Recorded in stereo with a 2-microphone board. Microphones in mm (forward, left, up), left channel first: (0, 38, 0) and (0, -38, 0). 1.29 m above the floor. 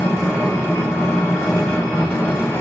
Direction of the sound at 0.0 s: 30° left (ahead or behind).